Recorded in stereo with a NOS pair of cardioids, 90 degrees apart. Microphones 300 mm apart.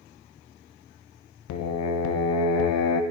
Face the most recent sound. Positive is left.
turn(degrees=65)